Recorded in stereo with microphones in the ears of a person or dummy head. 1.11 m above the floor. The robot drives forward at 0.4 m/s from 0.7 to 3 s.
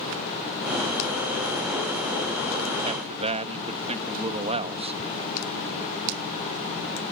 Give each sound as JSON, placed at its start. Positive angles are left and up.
{"t": 2.8, "sound": "a man speaking", "side_deg": -30}